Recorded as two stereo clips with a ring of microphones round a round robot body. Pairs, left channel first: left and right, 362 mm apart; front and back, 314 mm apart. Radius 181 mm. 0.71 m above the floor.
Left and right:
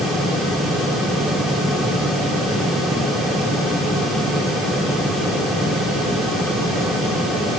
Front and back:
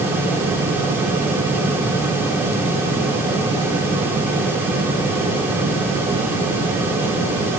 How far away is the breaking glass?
No breaking glass in this recording.